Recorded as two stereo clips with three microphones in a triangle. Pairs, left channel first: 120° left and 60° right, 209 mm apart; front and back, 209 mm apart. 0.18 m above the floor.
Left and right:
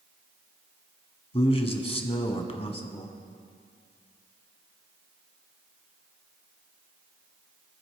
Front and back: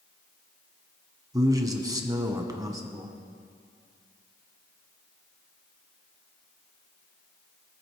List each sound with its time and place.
1.3 s a man speaking: 130° left, 1.3 m